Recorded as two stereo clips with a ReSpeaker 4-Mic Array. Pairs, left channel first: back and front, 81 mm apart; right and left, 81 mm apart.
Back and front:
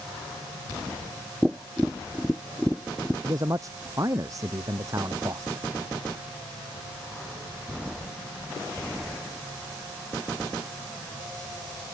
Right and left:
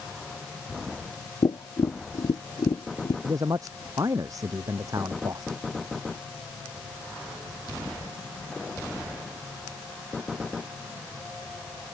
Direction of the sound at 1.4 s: 90° right.